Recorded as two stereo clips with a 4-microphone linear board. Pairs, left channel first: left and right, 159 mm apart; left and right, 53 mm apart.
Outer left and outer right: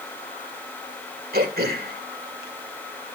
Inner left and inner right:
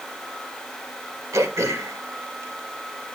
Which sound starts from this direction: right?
Throat clearing, at 1.3 s.